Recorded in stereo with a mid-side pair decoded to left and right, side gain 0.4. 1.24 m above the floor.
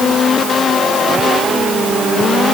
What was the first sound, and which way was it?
Only background noise.